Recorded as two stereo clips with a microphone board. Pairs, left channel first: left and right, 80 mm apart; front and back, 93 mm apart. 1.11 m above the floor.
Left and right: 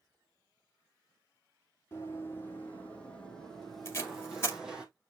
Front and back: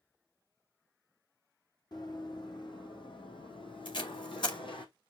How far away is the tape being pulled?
About 2.5 m.